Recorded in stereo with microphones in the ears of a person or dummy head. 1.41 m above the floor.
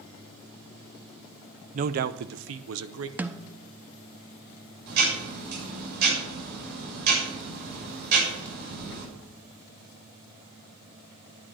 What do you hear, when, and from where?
1.7 s a man speaking: 40° right (ahead or behind), 0.6 m; by 3.1 s 90° right, 1.0 m
3.2 s a snare drum: 5° right (ahead or behind), 0.6 m
4.9 s ticking: 65° right (ahead or behind), 7 m